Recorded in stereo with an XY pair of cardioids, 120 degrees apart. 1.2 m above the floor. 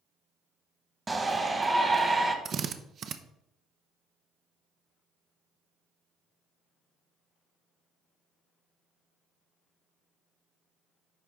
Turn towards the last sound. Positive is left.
turn(degrees=-50)